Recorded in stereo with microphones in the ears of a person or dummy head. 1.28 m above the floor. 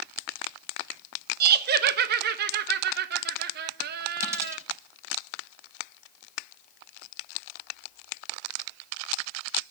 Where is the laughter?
65° right (ahead or behind), 1.1 m.